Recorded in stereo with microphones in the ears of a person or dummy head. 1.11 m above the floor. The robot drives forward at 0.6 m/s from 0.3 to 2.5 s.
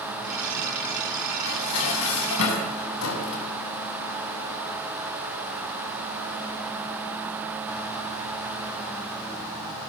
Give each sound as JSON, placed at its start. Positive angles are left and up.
{"t": 1.5, "sound": "dishes clattering", "side_deg": 80, "distance_m": 5.5}